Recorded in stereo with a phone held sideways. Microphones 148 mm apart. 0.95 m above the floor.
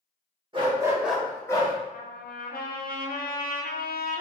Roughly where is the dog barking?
Right.